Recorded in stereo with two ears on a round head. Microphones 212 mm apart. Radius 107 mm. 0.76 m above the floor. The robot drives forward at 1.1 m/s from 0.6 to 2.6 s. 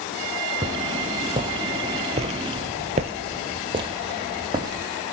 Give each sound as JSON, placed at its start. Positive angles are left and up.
{"t": 0.6, "sound": "footsteps", "side_deg": -20, "distance_m": 1.8}